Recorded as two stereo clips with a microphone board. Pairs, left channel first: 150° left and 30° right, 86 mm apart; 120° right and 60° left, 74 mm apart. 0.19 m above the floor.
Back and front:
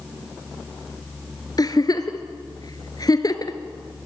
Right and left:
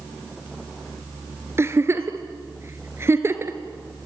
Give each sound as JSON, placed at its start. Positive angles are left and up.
{"t": 1.6, "sound": "a giggle", "azimuth_deg": 110, "distance_m": 1.5}